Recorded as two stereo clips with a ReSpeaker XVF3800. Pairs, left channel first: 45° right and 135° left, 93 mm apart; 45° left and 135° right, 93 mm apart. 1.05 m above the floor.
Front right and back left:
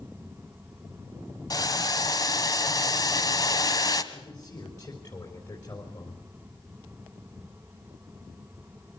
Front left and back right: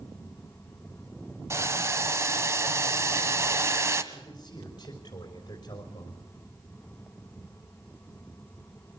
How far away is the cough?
I don't hear a cough.